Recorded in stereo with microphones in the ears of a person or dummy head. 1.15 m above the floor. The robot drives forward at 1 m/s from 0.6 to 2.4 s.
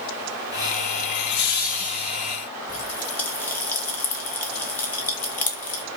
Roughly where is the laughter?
Left.